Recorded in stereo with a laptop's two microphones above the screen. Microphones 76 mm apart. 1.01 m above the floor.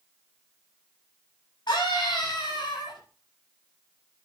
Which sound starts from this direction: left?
A scream, at 1.7 s.